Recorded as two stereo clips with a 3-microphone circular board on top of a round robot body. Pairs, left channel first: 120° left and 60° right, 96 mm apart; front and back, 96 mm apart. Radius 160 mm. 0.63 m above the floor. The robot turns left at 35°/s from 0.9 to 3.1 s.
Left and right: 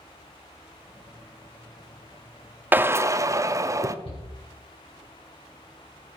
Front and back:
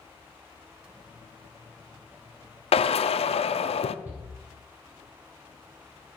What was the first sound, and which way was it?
A drill, 15° left.